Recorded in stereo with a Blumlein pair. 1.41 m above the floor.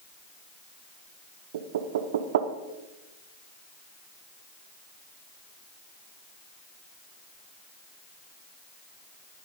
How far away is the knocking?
About 0.8 m.